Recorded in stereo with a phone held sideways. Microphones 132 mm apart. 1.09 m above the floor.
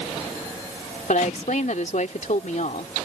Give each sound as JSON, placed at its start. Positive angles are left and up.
{"t": 1.1, "sound": "a woman speaking", "side_deg": 70}